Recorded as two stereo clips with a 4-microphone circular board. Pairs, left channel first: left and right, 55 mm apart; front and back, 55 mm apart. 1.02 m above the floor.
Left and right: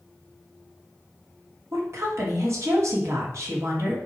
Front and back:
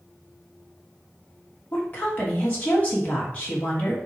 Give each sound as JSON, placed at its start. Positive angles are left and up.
{"t": 1.7, "sound": "a woman speaking", "azimuth_deg": -60, "distance_m": 3.0}